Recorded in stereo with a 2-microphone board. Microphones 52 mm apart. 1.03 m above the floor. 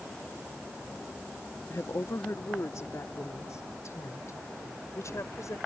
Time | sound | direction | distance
1.7 | a woman speaking | 70° left (ahead or behind) | ?